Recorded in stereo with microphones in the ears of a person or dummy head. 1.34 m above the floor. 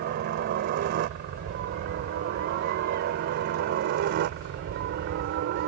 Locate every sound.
0.0 s a helicopter: 50° right (ahead or behind); by 5.7 s 55° right (ahead or behind)